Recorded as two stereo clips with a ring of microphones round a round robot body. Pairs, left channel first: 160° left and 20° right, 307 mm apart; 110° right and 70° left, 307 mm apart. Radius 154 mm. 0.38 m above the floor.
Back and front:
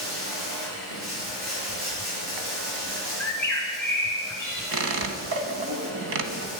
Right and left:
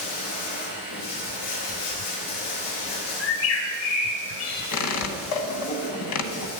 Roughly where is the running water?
Right.